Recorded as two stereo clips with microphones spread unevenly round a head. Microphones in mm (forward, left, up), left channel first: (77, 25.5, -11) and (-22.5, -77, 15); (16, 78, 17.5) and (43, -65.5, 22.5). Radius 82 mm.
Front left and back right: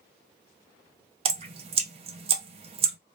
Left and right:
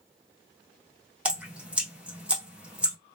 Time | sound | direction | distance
1.2 | dripping | 160° right | 0.6 m